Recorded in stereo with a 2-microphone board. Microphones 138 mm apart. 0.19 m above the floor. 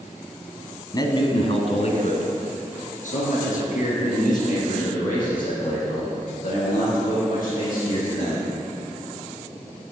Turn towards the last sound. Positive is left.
turn(degrees=80)